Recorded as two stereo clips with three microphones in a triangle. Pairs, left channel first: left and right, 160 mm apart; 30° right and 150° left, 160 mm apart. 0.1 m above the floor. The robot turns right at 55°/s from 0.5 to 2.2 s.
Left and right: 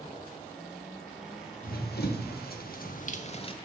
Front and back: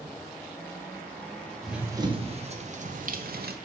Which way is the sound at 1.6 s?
60° left.